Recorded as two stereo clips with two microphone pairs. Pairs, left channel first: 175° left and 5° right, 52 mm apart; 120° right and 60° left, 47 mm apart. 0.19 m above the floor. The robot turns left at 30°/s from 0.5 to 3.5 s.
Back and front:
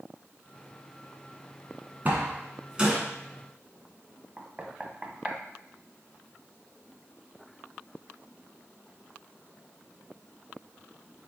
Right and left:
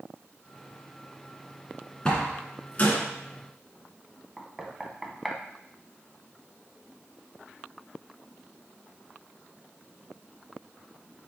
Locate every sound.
2.0 s a door slam: 50° right, 1.7 m; by 3.0 s 80° right, 1.7 m
4.4 s knocking: 25° right, 0.8 m